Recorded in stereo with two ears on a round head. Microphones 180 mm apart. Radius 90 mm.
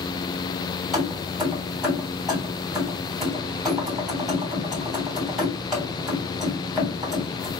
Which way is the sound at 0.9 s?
Centre (ahead or behind).